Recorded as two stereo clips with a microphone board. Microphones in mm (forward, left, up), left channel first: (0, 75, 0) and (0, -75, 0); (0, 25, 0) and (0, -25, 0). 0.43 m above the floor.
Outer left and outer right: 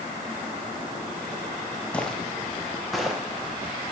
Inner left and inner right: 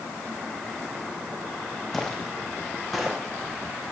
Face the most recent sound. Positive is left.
turn(degrees=0)  # may be behind; listen again after turning